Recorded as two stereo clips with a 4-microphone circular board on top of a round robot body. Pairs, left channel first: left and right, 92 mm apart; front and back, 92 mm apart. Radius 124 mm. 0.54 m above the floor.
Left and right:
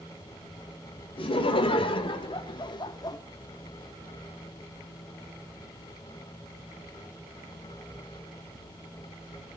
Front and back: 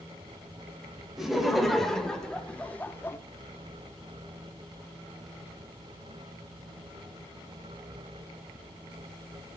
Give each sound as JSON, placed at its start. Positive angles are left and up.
{"t": 1.2, "sound": "laughter", "azimuth_deg": 90, "distance_m": 4.0}